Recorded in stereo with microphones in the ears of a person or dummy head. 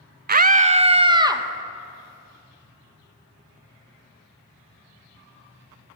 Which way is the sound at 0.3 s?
45° right (ahead or behind).